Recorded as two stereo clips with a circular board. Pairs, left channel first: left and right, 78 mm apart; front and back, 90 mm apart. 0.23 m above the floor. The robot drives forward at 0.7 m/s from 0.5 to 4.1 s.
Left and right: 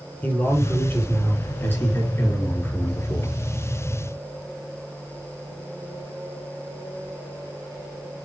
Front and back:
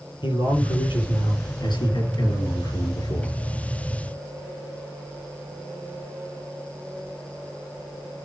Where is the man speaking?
25° left, 5 m; by 3.4 s 40° left, 3.5 m.